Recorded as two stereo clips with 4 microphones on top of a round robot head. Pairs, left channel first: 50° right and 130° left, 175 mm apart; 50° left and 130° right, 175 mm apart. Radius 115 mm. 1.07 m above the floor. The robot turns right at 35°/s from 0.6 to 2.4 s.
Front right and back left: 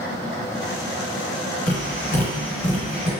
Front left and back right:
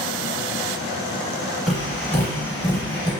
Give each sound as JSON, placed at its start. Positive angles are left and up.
{"t": 1.7, "sound": "tapping", "azimuth_deg": -40, "distance_m": 1.0}